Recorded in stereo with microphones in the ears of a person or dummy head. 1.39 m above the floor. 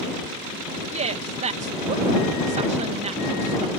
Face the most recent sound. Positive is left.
turn(degrees=-35)  # may be behind; listen again after turning